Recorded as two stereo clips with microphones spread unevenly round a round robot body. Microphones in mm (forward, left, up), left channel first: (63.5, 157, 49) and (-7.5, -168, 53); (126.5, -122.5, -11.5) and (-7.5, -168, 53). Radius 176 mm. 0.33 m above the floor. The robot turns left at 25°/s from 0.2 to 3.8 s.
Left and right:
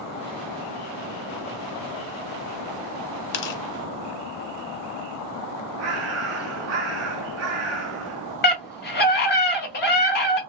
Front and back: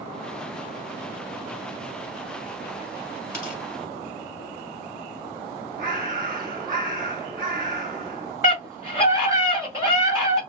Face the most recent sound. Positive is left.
turn(degrees=100)